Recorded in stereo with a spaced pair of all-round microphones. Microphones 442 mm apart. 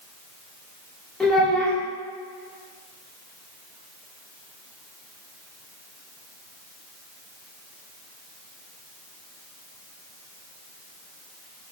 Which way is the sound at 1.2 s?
Centre (ahead or behind).